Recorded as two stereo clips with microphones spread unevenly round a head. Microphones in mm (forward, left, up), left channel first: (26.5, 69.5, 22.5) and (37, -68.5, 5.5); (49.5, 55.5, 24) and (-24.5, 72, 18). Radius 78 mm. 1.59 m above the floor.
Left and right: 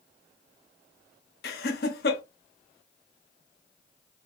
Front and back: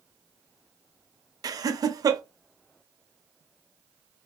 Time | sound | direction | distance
1.4 | laughter | 125° left | 0.5 m